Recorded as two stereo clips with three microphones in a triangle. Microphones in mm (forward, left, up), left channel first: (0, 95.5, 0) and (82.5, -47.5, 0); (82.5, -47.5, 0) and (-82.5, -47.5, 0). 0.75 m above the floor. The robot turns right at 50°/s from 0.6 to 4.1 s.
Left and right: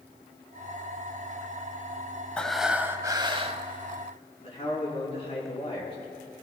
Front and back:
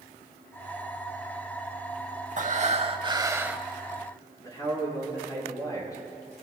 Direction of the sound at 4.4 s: 65° left.